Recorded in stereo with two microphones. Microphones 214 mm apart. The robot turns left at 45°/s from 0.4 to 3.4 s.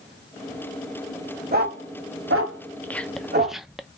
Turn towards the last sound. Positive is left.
turn(degrees=0)  # may be behind; listen again after turning